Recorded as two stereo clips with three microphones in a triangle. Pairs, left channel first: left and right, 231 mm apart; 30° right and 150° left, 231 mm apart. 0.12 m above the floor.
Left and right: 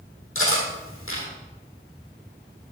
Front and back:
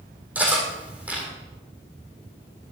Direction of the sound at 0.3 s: 70° left.